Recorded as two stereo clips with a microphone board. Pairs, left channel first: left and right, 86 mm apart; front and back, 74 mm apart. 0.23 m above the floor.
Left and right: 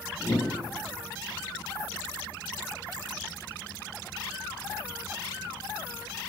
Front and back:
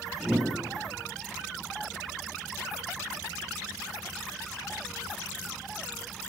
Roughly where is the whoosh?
Left.